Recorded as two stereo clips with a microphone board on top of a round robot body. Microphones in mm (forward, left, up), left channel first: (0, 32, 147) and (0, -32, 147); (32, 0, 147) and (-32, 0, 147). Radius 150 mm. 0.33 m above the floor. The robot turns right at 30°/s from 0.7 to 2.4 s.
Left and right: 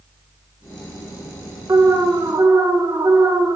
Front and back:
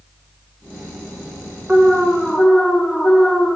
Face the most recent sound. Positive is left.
turn(degrees=-85)